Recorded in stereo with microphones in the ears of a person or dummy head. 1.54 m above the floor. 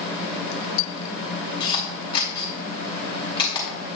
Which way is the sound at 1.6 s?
30° left (ahead or behind).